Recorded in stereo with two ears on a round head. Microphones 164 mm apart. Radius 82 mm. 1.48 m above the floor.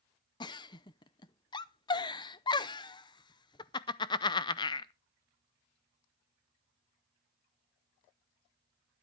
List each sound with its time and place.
0.4 s a giggle: 25° left (ahead or behind), 0.6 m